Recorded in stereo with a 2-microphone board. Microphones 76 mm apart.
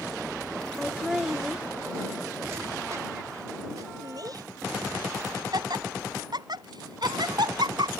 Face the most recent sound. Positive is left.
turn(degrees=-70)  # may be behind; listen again after turning